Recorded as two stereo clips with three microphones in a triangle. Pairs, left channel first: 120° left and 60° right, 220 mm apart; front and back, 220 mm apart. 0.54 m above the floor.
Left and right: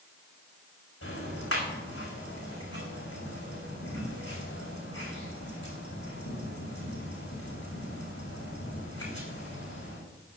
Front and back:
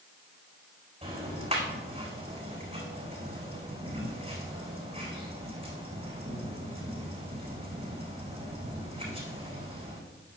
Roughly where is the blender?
No blender in this recording.